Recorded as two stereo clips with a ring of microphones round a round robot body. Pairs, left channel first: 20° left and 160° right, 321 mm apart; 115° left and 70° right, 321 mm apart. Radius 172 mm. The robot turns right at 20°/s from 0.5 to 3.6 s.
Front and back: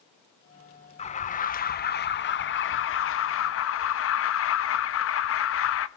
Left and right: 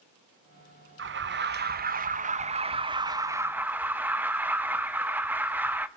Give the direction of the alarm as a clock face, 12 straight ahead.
1 o'clock.